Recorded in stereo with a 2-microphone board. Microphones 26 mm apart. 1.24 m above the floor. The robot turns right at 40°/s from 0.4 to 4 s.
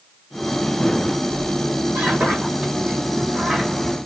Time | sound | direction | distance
1.3 | a squeak | 45° right (ahead or behind) | 3.5 m